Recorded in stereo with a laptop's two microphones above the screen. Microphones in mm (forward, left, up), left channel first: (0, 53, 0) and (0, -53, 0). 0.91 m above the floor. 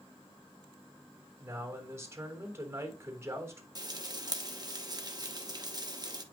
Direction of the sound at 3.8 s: 40° right (ahead or behind).